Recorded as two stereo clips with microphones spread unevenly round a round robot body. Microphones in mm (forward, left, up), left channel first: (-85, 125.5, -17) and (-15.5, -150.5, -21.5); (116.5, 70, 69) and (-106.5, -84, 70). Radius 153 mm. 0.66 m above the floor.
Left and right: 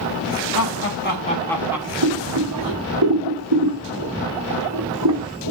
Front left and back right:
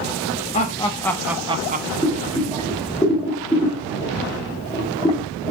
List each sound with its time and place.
0.5 s laughter: 90° left, 1.4 m; by 1.9 s 140° right, 1.1 m
2.0 s boiling: 35° right, 3.5 m